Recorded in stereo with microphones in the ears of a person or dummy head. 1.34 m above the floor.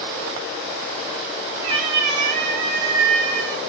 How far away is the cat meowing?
About 1.0 m.